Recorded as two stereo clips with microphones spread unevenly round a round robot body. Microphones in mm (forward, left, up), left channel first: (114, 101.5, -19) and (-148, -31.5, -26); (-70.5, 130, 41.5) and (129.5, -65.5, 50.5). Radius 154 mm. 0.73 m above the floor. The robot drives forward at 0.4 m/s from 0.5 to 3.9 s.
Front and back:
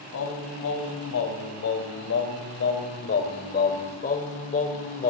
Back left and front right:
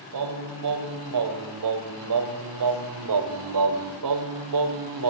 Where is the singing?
25° right, 3 m; by 5.1 s 40° right, 1.9 m.